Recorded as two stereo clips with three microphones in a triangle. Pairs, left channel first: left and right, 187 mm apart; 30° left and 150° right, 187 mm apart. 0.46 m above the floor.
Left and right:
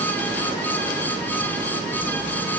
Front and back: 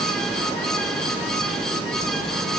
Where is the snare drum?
No snare drum in this recording.